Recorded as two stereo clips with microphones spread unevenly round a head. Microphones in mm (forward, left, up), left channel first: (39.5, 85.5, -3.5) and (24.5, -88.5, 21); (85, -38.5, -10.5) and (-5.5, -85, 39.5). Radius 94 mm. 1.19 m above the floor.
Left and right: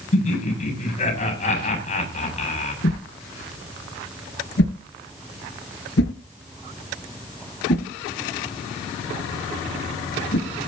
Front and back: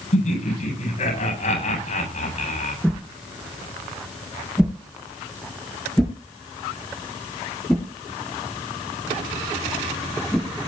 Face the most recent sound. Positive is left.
turn(degrees=125)